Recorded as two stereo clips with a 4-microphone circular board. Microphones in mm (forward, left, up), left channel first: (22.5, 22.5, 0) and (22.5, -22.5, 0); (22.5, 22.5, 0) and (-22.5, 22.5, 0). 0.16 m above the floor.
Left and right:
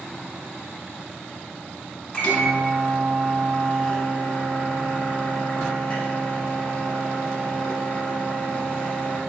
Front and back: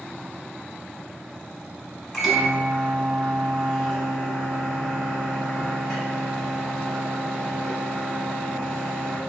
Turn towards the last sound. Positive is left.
turn(degrees=85)